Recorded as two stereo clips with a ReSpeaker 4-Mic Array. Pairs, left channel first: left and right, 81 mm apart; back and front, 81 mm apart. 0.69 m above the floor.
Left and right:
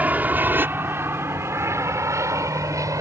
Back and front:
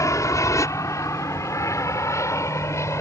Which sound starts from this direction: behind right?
An aircraft, at 0.0 s.